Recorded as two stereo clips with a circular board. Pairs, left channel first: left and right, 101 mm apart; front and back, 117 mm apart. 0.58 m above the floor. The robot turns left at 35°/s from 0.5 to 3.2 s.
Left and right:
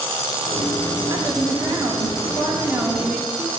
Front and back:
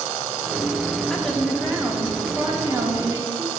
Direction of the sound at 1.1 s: 85° right.